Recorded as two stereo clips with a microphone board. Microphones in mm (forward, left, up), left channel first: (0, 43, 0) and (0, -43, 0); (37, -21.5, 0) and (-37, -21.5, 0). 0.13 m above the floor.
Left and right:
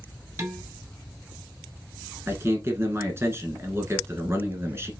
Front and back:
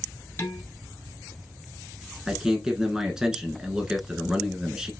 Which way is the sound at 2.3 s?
105° right.